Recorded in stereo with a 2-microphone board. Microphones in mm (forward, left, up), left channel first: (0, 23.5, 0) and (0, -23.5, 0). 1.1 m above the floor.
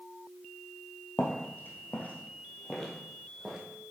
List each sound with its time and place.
1.2 s footsteps: 55° left (ahead or behind), 1.8 m; by 3.6 s 10° right (ahead or behind), 2.5 m